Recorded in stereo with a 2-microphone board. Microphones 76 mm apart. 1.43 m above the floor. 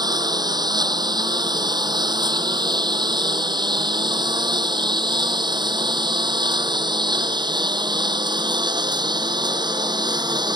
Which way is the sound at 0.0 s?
65° right (ahead or behind).